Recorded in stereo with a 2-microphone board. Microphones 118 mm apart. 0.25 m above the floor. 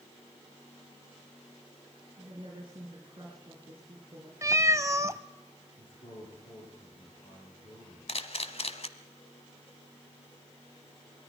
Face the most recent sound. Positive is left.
turn(degrees=55)  # may be behind; listen again after turning